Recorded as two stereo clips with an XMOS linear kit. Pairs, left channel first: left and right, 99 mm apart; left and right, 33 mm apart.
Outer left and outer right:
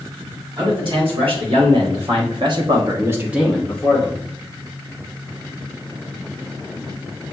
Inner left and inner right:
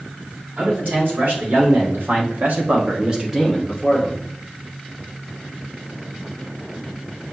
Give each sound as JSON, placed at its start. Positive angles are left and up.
{"t": 0.6, "sound": "a man speaking", "side_deg": -65, "distance_m": 2.5}